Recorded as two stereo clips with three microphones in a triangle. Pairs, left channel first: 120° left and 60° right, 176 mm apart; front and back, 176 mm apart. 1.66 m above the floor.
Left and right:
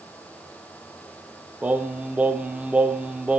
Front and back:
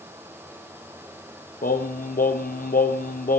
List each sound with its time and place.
1.6 s singing: 20° left, 0.9 m